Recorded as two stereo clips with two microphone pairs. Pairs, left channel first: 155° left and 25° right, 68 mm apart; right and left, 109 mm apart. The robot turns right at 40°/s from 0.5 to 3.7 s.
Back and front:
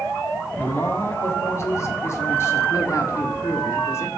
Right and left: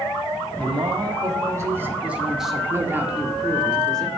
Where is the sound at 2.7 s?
150° left, 1.0 m; by 4.1 s 170° right, 1.0 m.